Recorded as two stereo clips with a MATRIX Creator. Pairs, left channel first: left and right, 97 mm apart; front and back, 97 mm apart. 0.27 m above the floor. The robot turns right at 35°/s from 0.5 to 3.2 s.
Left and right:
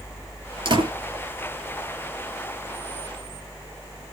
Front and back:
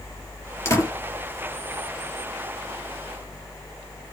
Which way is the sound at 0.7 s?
60° right.